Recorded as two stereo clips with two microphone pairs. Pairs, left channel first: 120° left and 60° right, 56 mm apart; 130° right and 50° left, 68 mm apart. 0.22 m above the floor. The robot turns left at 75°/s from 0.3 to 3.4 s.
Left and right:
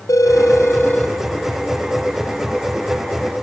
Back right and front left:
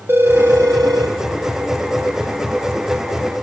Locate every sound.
0.1 s a phone ringing: 105° left, 4 m; by 3.4 s 130° right, 4 m